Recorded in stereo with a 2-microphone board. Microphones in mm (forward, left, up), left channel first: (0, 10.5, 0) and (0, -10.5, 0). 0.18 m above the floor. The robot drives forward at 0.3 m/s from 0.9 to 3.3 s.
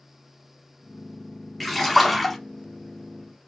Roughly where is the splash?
Centre.